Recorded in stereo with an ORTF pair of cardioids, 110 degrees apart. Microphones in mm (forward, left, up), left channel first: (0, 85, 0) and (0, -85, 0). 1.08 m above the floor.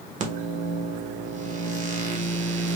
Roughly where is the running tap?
I don't hear a running tap.